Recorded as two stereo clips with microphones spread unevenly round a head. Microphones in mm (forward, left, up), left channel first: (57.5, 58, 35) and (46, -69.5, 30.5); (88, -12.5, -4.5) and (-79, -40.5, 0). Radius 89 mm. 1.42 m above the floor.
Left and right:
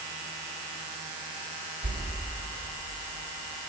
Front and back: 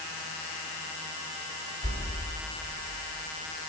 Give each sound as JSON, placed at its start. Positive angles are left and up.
{"t": 1.8, "sound": "a whoosh", "azimuth_deg": -130, "distance_m": 4.0}